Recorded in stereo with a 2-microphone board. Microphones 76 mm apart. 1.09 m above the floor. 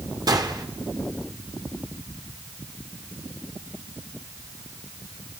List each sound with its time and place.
0.3 s a gunshot: 60° right (ahead or behind), 1.7 m